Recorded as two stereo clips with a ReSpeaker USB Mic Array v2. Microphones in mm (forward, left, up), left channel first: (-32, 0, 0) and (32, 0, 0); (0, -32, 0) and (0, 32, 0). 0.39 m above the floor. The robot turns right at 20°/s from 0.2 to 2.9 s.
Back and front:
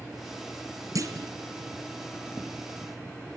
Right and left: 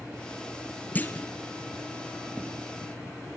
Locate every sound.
0.9 s a clunk: 30° right, 1.9 m; by 1.3 s 20° right, 1.9 m